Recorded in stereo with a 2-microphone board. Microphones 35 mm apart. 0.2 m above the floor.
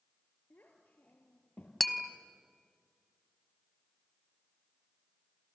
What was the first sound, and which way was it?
A child speaking, 65° left (ahead or behind).